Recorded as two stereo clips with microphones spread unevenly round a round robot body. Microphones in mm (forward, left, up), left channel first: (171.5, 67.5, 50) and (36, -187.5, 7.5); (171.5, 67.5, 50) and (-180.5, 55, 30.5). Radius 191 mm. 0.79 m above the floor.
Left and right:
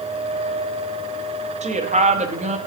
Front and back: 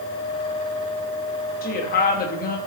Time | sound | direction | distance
1.6 | a woman speaking | 60° right | 1.1 m